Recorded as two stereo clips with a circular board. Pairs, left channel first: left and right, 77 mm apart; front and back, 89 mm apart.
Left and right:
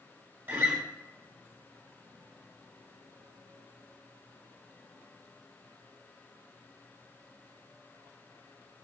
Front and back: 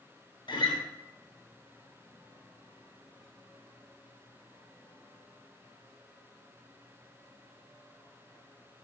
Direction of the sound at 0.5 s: 25° right.